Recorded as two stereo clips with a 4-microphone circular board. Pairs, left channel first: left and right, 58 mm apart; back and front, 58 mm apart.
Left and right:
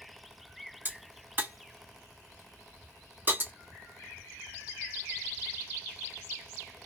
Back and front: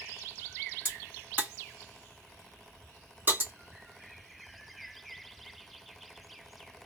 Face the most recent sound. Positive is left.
turn(degrees=-45)